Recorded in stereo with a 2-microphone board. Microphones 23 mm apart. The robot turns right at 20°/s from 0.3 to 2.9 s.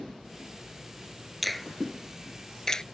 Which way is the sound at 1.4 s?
Centre (ahead or behind).